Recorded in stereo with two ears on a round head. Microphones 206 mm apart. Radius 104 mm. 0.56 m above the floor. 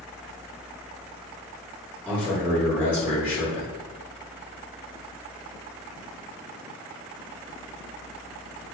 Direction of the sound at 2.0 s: 5° right (ahead or behind).